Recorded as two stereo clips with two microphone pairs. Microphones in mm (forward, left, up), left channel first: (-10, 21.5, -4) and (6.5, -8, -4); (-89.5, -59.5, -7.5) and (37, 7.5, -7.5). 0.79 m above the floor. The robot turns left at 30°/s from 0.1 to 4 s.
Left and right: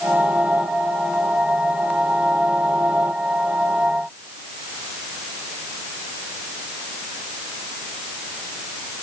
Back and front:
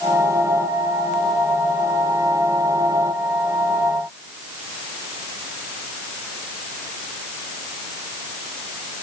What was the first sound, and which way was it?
Only background noise.